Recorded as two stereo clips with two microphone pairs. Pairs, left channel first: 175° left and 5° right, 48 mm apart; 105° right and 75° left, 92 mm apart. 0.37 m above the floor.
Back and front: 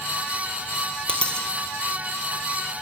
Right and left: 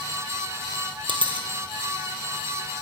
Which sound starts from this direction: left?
A dropped coin, at 1.1 s.